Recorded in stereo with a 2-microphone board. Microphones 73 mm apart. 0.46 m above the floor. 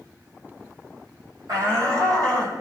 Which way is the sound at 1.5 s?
55° right (ahead or behind).